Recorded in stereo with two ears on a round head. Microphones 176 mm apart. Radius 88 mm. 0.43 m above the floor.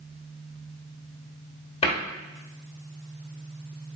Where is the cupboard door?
30° left (ahead or behind), 0.9 m.